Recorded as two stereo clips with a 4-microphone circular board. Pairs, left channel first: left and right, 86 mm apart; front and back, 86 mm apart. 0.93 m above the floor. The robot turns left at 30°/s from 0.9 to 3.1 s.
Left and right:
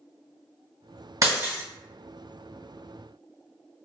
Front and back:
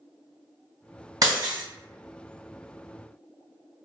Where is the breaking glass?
140° right, 1.7 m; by 1.6 s 155° right, 1.7 m.